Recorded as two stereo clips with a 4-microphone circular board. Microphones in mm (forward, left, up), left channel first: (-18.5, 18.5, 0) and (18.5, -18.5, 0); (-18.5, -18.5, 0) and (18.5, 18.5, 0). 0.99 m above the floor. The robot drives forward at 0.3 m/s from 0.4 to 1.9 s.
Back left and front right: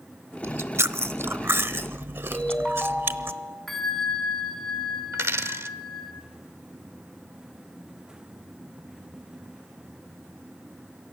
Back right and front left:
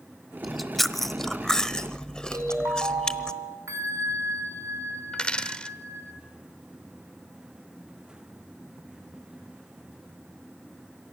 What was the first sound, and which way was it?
Chewing, 40° right.